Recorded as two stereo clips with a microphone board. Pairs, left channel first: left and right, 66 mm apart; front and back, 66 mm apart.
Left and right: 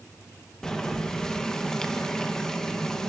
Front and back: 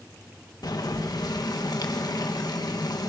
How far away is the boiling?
About 2.5 m.